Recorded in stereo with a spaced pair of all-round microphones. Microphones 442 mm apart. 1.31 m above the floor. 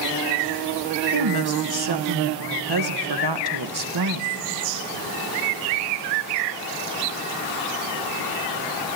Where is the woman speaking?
60° right (ahead or behind), 1.1 m.